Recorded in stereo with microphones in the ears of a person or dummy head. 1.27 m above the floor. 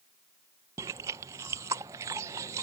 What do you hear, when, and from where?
0.8 s chewing: 15° right (ahead or behind)